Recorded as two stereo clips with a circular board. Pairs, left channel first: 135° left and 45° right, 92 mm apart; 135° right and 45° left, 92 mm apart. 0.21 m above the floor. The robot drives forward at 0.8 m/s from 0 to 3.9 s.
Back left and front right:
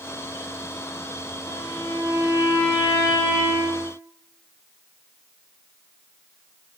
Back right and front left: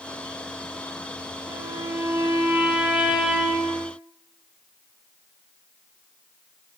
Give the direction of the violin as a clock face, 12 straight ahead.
9 o'clock.